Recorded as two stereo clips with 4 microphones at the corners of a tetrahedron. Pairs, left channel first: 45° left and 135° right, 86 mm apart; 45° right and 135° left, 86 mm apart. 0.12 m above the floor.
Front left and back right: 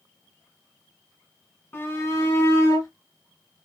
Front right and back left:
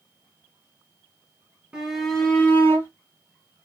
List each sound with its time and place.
1.7 s a shout: 70° left, 1.4 m; by 2.9 s 10° left, 2 m